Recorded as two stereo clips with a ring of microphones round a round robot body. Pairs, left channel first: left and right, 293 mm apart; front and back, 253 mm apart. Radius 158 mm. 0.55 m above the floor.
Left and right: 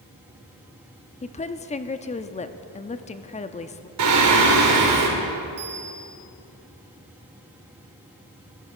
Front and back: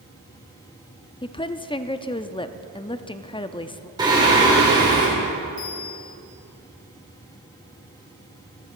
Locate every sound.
1.2 s a woman speaking: 50° left, 0.7 m
4.0 s singing: 105° right, 2.5 m
5.6 s a bell: 35° right, 4 m